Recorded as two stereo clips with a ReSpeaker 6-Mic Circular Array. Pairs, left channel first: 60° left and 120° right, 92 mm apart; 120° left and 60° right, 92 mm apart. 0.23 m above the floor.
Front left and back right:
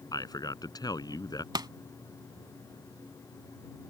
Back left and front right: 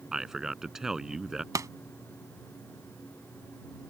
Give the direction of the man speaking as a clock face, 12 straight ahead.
11 o'clock.